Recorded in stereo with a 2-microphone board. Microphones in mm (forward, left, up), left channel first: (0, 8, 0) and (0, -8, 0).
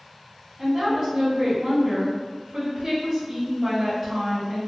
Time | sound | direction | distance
0.6 | a woman speaking | 20° right (ahead or behind) | 0.9 m